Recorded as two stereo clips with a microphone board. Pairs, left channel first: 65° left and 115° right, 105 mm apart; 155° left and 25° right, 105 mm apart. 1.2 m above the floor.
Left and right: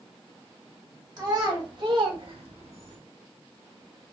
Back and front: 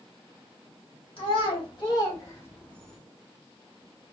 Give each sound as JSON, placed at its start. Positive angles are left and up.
{"t": 1.2, "sound": "a child speaking", "azimuth_deg": -165, "distance_m": 2.5}